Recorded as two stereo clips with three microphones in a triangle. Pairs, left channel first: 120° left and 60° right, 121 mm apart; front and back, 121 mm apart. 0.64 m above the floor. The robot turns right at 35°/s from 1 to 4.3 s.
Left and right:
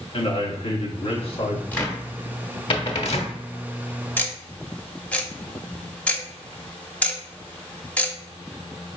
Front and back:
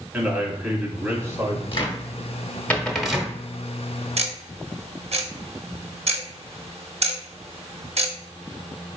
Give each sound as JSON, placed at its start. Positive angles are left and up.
{"t": 0.1, "sound": "a man speaking", "azimuth_deg": 110, "distance_m": 1.2}
{"t": 1.7, "sound": "a cupboard door", "azimuth_deg": 45, "distance_m": 0.9}
{"t": 4.2, "sound": "ticking", "azimuth_deg": -165, "distance_m": 0.7}